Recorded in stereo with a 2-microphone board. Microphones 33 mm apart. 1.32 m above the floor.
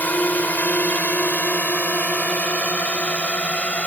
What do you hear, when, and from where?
0.0 s a drone: 60° left (ahead or behind); by 3.9 s 40° left (ahead or behind)